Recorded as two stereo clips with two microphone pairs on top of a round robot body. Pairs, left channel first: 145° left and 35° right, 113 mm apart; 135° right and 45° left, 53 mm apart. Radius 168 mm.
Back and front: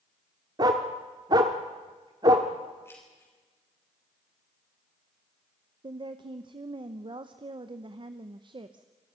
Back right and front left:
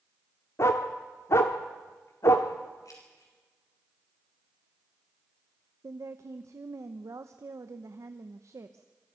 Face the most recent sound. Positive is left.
turn(degrees=15)